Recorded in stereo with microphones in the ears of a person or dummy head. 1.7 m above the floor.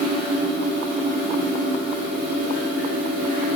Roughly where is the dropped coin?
I don't hear a dropped coin.